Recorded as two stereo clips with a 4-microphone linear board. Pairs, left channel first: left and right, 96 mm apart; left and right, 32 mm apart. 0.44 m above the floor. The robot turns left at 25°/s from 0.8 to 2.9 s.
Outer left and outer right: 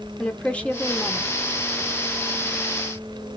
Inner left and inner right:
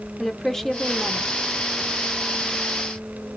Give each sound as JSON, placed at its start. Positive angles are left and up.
{"t": 0.2, "sound": "a woman speaking", "side_deg": 15, "distance_m": 0.7}